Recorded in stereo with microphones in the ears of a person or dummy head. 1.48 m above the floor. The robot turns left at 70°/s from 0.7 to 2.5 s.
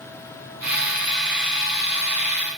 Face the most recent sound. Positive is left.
No sound to turn to.